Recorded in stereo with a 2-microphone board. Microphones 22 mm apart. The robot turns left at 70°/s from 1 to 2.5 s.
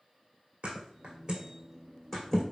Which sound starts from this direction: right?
A thud, at 0.6 s.